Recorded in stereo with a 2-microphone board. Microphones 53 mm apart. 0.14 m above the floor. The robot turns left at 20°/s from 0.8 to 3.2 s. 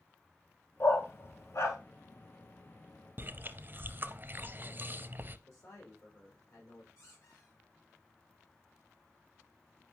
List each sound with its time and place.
0.8 s a dog barking: 45° left (ahead or behind), 1.4 m; by 1.8 s 60° left (ahead or behind), 1.4 m
3.2 s chewing: 35° right (ahead or behind), 0.6 m
5.5 s a man speaking: 65° left (ahead or behind), 4.5 m
7.0 s a squeak: 70° left (ahead or behind), 6 m